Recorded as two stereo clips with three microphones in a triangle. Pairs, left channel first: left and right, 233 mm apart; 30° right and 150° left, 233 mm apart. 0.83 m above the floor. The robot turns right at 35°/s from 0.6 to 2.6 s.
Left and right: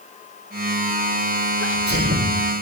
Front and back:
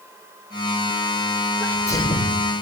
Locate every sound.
1.6 s a sneeze: 115° right, 3.5 m; by 2.4 s 90° right, 3.5 m